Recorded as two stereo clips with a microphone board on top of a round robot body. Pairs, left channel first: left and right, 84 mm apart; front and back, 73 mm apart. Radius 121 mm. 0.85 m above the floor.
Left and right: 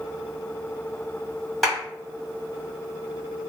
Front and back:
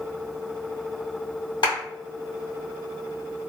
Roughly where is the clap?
Ahead.